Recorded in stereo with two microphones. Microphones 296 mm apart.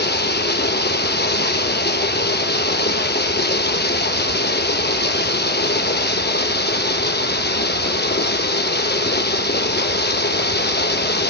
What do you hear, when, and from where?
0.0 s running water: 35° left (ahead or behind), 0.8 m